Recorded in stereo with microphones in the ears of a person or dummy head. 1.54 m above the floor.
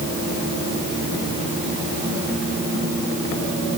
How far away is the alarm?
No alarm in this recording.